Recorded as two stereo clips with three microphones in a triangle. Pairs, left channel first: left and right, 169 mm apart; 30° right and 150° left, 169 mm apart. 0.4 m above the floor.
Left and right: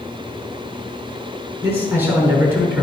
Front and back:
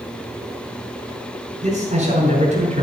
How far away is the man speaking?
About 5.5 m.